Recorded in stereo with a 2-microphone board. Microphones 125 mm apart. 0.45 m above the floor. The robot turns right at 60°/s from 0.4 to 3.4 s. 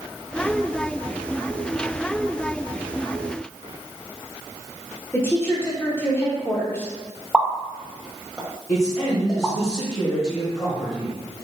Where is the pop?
Centre (ahead or behind), 0.6 m.